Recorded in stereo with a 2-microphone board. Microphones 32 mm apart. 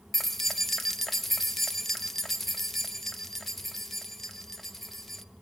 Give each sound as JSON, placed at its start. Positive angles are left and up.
{"t": 0.1, "sound": "keys jangling", "side_deg": 5, "distance_m": 0.5}